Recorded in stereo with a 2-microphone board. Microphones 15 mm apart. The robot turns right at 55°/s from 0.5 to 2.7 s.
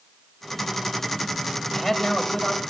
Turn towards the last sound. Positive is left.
turn(degrees=65)